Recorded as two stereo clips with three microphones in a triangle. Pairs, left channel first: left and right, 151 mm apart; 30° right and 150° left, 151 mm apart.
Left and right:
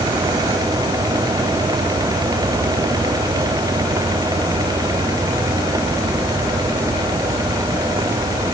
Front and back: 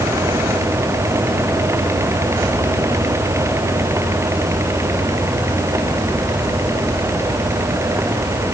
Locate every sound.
Only background noise.